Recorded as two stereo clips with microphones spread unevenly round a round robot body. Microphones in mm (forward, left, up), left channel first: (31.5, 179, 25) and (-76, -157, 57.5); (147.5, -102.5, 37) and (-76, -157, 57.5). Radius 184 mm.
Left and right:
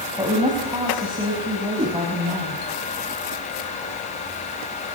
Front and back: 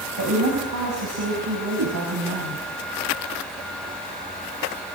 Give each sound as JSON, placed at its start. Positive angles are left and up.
{"t": 0.2, "sound": "a woman speaking", "azimuth_deg": 175, "distance_m": 5.0}
{"t": 1.8, "sound": "a whoosh", "azimuth_deg": 175, "distance_m": 2.5}